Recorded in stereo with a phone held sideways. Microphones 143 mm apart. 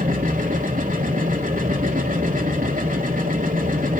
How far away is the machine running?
About 2.5 m.